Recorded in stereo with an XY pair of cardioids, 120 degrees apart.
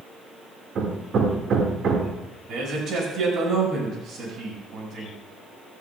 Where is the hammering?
50° right, 2 m.